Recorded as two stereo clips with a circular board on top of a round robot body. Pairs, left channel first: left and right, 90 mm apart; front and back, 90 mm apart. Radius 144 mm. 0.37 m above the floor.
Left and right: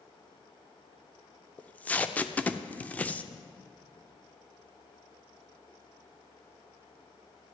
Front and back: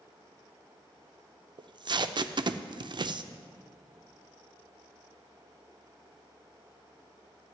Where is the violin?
No violin in this recording.